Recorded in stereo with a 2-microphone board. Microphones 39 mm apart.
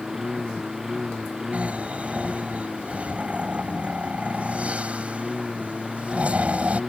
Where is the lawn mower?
10° right (ahead or behind).